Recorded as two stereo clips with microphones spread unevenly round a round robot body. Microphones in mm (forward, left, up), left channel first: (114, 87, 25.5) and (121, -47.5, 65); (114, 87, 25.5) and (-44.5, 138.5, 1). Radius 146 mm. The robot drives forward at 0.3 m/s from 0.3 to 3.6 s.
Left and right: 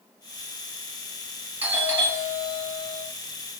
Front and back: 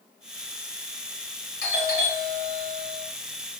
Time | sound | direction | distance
1.6 | a doorbell | straight ahead | 2.5 m